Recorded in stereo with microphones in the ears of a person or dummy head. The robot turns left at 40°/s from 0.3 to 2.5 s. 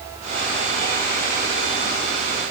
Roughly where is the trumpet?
No trumpet in this recording.